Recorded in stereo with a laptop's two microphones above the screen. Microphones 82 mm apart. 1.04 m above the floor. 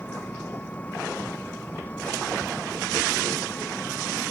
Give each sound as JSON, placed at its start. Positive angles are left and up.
{"t": 0.0, "sound": "an engine running", "side_deg": 20}